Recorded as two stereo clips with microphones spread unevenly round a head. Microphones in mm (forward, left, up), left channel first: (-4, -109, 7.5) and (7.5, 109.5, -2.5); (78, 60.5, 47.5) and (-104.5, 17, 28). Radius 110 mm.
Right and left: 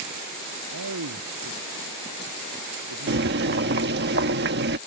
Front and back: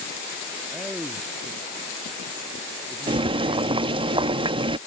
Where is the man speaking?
105° left.